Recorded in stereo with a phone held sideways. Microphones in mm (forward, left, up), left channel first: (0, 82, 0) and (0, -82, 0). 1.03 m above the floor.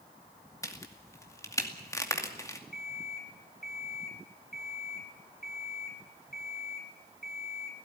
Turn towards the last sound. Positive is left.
turn(degrees=60)  # may be behind; listen again after turning